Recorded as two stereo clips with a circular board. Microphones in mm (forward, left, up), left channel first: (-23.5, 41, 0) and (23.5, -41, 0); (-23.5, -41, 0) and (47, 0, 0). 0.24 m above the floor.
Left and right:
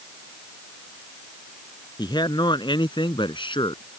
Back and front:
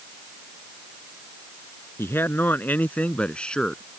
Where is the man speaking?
150° left; by 3.8 s 130° left.